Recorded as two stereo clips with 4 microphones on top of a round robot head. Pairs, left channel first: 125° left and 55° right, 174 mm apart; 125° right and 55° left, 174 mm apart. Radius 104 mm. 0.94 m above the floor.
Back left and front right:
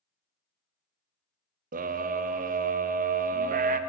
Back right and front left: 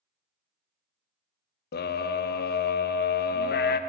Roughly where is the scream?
Right.